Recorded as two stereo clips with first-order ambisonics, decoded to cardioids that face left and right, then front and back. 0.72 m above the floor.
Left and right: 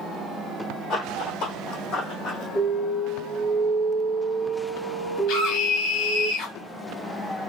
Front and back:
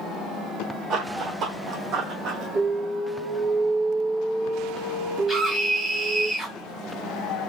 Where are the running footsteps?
135° left, 1.6 m.